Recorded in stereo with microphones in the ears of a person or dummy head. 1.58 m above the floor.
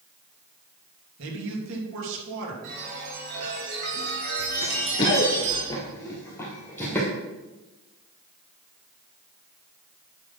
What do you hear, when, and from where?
1.2 s a man speaking: 75° right (ahead or behind), 3 m
2.6 s a chime: 55° right (ahead or behind), 4 m
4.6 s running footsteps: 20° left (ahead or behind), 1.6 m; by 7.1 s 5° left (ahead or behind), 3.5 m